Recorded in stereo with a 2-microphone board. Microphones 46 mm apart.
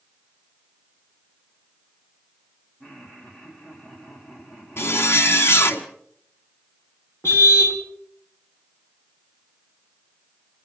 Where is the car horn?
80° left, 2.5 m.